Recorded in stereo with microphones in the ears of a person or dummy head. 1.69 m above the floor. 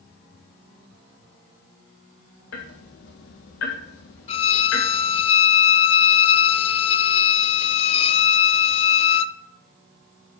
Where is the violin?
35° left (ahead or behind), 0.6 m.